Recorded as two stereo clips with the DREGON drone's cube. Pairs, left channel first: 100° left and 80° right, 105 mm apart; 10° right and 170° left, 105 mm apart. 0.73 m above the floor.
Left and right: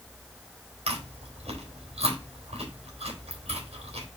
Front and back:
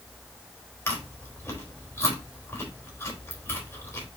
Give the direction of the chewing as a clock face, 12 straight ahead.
3 o'clock.